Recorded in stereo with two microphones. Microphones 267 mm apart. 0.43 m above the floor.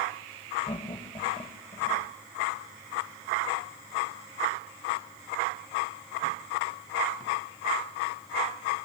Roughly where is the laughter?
Centre.